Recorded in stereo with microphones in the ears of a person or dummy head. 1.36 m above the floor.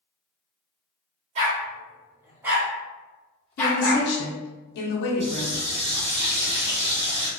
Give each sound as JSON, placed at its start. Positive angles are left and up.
{"t": 1.4, "sound": "a dog barking", "side_deg": -40, "distance_m": 1.2}
{"t": 3.6, "sound": "a woman speaking", "side_deg": 65, "distance_m": 0.7}
{"t": 5.2, "sound": "a running tap", "side_deg": -40, "distance_m": 1.7}